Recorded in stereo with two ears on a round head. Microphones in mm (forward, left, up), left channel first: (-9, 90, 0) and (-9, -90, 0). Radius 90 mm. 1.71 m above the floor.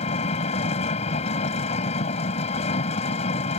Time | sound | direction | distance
0.0 | an engine running | 35° left (ahead or behind) | ?